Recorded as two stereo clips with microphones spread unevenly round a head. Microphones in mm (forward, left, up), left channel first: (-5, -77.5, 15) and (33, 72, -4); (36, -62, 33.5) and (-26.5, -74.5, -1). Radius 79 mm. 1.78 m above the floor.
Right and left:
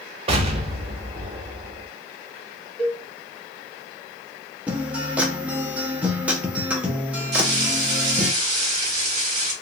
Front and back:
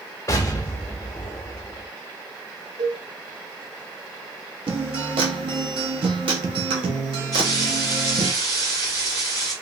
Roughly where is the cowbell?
Behind.